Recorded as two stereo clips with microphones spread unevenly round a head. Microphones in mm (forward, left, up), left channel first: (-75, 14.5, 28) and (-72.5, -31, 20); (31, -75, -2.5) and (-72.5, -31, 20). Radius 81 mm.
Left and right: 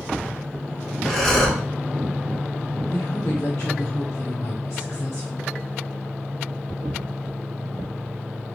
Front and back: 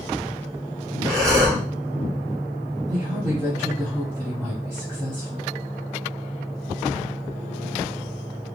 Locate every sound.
1.1 s breathing: 165° left, 1.0 m
2.9 s a woman speaking: 85° left, 0.9 m